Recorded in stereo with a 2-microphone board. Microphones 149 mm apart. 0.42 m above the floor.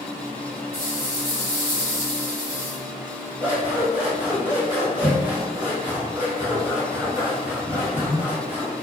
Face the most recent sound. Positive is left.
turn(degrees=-15)  # may be behind; listen again after turning